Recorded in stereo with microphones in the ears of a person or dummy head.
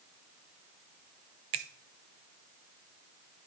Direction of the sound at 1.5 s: 35° right (ahead or behind).